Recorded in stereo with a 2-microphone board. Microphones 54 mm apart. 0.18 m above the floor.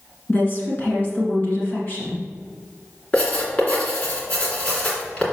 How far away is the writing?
About 2.5 m.